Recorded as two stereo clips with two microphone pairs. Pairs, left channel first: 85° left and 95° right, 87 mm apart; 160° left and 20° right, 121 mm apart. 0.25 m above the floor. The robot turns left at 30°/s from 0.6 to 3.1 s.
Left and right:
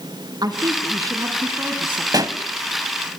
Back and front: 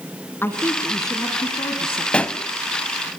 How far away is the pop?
About 0.7 m.